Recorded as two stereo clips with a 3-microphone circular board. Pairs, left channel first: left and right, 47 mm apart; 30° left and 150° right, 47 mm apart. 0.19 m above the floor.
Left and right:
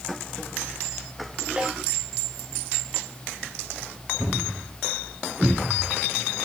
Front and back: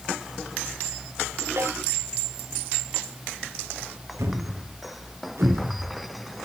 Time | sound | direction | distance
1.6 | a snare drum | 155° right | 9 m
4.2 | a thud | 160° right | 4 m